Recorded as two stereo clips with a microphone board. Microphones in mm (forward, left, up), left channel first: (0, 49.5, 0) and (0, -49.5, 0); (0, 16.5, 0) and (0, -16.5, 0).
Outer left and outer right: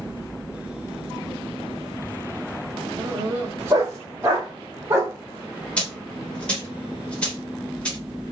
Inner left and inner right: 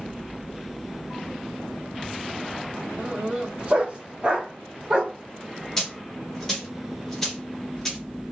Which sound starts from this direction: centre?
A dropped coin, at 5.8 s.